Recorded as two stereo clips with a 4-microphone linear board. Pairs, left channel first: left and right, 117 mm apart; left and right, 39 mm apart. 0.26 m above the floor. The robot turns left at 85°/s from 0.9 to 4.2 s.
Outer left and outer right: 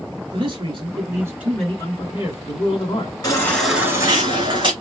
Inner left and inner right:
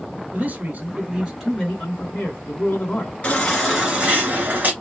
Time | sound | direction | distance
0.3 | a man speaking | 125° right | 3 m
3.2 | a baby crying | 35° left | 2 m